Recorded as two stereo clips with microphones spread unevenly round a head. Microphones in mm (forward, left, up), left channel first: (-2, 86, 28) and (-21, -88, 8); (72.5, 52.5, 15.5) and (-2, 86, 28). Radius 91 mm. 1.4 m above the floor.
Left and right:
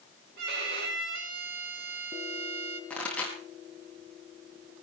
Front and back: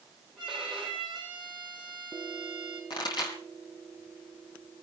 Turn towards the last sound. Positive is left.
turn(degrees=0)